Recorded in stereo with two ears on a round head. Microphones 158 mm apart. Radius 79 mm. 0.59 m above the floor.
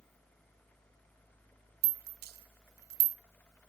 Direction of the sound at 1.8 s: 55° right (ahead or behind).